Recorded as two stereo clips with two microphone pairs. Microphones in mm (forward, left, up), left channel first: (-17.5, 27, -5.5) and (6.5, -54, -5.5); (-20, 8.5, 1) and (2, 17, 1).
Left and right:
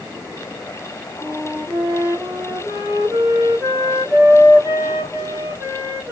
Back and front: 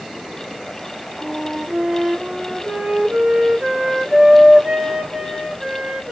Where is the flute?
20° right, 1.3 m.